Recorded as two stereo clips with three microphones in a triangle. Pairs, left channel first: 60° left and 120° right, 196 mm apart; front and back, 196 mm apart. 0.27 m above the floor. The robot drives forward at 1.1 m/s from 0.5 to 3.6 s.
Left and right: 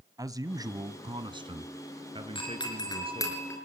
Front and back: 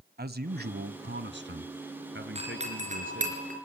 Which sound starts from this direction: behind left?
A doorbell, at 2.4 s.